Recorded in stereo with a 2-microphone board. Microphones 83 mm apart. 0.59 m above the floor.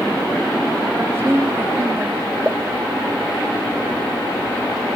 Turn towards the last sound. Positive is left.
turn(degrees=-15)  # may be behind; listen again after turning